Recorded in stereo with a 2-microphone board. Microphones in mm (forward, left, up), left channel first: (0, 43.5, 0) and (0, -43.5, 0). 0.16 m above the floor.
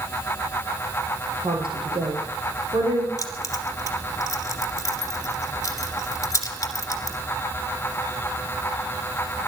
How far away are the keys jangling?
About 2.0 m.